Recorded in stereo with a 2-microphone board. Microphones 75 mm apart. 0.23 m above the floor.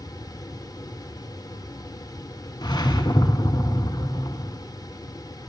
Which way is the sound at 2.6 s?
65° left (ahead or behind).